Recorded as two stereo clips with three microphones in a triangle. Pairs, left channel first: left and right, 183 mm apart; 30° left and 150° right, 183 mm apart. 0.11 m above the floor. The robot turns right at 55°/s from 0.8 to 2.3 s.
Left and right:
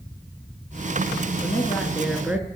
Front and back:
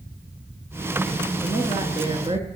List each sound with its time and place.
1.4 s a woman speaking: 145° left, 1.4 m; by 2.5 s 165° right, 1.4 m